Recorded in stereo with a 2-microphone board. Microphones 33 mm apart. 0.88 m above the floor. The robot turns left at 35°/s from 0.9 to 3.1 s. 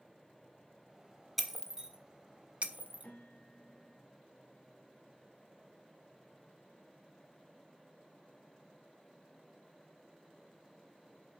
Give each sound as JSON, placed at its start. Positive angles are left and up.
{"t": 1.4, "sound": "breaking glass", "side_deg": -5, "distance_m": 1.2}
{"t": 3.0, "sound": "a piano", "side_deg": 60, "distance_m": 2.5}